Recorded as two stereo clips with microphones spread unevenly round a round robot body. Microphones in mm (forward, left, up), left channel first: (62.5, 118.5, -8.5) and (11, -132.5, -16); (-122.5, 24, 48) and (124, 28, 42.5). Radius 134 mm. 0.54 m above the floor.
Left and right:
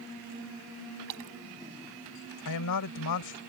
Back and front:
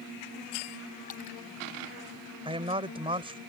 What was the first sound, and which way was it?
A splash, 120° right.